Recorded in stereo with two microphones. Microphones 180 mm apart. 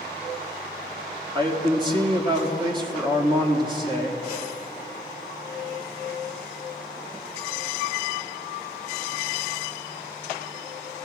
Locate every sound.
1.4 s a man speaking: 25° right (ahead or behind), 1.6 m